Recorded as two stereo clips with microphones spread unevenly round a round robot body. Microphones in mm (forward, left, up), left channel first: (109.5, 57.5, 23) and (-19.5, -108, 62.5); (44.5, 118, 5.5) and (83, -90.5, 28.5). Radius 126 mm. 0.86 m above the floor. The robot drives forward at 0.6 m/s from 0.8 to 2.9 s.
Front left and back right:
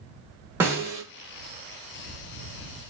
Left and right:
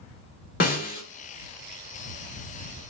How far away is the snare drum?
About 0.8 m.